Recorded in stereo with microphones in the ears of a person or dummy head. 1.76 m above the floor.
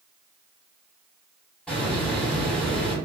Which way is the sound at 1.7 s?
5° left (ahead or behind).